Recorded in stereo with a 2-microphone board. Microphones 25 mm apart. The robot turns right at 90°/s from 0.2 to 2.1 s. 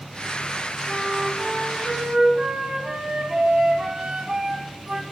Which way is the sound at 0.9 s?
5° left (ahead or behind).